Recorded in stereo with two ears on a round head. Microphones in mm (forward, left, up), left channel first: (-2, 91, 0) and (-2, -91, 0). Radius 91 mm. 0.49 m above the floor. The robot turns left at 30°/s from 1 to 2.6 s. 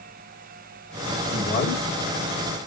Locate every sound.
1.3 s a man speaking: 20° left (ahead or behind), 1.4 m; by 1.8 s 30° left (ahead or behind), 1.4 m